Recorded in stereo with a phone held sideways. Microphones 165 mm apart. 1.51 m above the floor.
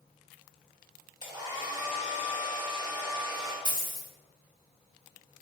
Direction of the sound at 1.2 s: 25° right (ahead or behind).